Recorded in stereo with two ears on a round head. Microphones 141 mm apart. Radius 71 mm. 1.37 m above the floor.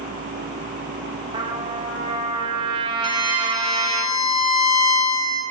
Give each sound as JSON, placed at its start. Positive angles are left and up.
{"t": 1.3, "sound": "a trumpet", "side_deg": -30, "distance_m": 0.8}
{"t": 3.0, "sound": "a violin", "side_deg": 35, "distance_m": 1.1}